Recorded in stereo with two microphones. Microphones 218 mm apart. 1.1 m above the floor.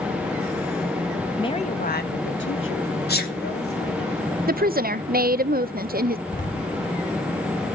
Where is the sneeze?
50° left (ahead or behind), 2 m.